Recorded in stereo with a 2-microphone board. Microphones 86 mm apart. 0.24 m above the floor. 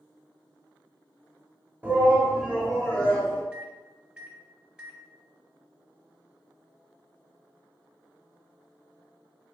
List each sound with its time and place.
1.8 s a shout: 20° right (ahead or behind), 1.1 m; by 3.4 s 20° left (ahead or behind), 1.1 m
3.5 s a microwave: 15° right (ahead or behind), 0.9 m